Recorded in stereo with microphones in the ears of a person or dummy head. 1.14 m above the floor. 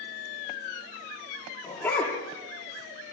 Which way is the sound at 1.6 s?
15° left (ahead or behind).